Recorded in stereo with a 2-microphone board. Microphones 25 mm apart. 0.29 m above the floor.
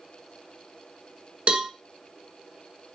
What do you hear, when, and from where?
1.5 s a cowbell: 50° right (ahead or behind), 0.5 m